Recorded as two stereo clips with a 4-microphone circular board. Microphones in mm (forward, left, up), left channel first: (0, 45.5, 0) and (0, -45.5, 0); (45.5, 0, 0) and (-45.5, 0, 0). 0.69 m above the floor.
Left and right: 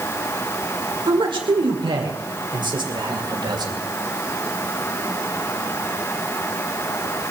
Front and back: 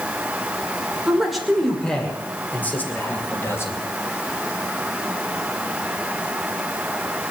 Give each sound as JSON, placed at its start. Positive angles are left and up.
{"t": 1.1, "sound": "a man speaking", "azimuth_deg": -95, "distance_m": 2.0}